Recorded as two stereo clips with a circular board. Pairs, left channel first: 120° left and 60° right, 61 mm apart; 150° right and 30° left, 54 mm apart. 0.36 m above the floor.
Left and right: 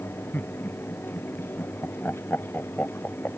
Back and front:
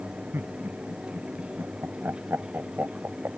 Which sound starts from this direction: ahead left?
Laughter, at 0.3 s.